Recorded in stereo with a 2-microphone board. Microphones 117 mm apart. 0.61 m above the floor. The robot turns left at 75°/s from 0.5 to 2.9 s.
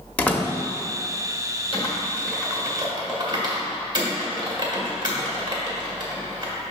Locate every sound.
0.2 s a door slam: 10° left (ahead or behind), 0.7 m
1.7 s typing on a keyboard: 45° left (ahead or behind), 1.6 m; by 6.5 s 40° right (ahead or behind), 1.6 m